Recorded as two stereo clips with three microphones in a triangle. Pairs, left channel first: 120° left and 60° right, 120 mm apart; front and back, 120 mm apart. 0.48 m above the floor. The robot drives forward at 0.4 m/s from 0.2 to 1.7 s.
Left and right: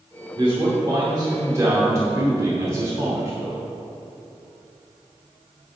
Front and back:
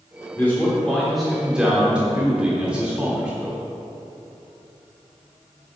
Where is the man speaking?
65° right, 1.3 m; by 3.6 s 105° right, 1.3 m.